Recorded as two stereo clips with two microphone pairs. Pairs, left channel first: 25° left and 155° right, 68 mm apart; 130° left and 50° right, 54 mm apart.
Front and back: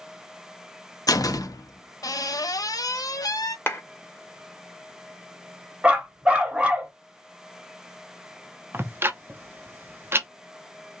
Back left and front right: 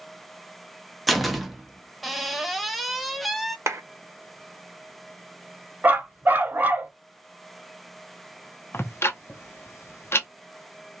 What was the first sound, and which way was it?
A door slam, 40° left.